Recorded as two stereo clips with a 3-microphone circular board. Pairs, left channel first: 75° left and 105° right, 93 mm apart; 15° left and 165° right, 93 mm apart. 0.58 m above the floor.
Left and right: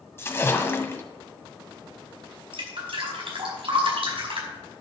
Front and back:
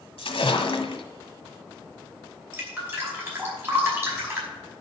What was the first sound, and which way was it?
A splash, 10° left.